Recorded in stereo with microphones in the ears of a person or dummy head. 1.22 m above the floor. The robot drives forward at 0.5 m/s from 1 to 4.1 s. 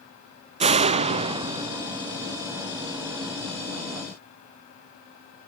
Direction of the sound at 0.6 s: 35° right (ahead or behind).